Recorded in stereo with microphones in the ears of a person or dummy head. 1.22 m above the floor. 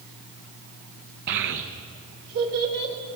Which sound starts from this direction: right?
A child speaking, at 1.3 s.